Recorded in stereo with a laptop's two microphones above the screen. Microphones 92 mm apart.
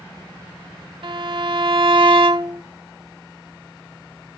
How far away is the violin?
About 1.0 m.